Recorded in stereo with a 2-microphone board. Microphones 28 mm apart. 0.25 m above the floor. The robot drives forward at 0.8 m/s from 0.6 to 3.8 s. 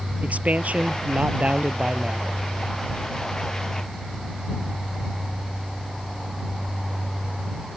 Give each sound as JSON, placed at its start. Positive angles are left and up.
{"t": 0.2, "sound": "a man speaking", "side_deg": -60}